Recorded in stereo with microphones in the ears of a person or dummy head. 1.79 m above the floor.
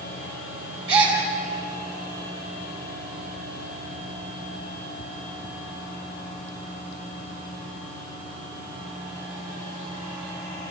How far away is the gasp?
About 6.5 m.